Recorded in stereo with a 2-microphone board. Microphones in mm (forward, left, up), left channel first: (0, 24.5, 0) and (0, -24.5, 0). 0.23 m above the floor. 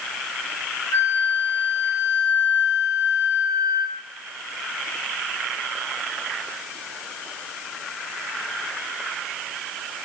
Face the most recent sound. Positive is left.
turn(degrees=65)  # may be behind; listen again after turning